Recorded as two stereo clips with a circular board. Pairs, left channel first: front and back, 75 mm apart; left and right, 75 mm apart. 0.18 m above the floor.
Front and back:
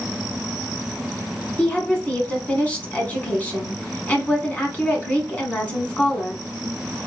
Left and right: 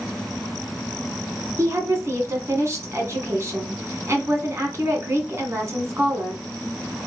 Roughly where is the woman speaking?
Ahead right.